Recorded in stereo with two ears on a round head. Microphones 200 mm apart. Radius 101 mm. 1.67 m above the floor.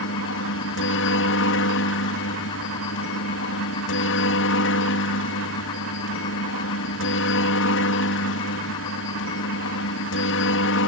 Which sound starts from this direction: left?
A helicopter, at 0.0 s.